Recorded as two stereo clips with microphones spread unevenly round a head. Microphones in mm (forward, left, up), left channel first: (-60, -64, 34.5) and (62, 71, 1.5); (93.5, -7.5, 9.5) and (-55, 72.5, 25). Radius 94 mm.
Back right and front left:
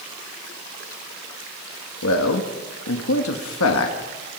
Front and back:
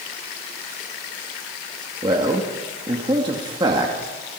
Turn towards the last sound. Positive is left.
turn(degrees=-140)